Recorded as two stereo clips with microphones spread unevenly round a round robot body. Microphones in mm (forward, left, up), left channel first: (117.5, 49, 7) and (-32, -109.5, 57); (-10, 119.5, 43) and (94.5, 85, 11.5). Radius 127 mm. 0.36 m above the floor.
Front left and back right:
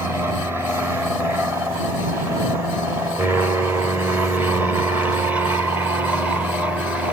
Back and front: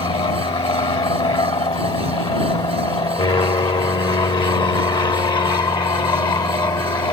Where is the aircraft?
140° left; by 7.1 s 130° left.